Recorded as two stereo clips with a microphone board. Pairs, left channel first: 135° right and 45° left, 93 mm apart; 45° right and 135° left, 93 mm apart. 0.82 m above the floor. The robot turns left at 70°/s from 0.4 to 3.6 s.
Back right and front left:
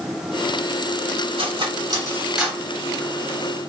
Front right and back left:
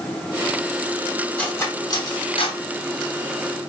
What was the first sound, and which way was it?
Cutlery clinking, 35° left.